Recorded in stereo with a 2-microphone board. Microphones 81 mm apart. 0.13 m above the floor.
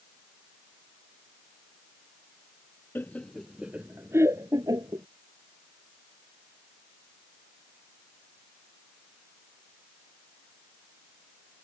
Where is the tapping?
I don't hear tapping.